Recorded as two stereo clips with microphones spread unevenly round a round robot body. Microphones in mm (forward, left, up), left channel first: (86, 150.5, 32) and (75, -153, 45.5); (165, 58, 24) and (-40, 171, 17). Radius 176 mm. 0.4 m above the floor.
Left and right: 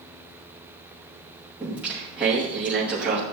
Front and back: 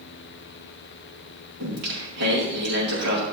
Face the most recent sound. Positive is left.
turn(degrees=180)